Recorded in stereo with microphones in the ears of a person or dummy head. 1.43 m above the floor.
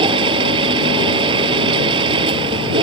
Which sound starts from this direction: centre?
A machine running, at 0.0 s.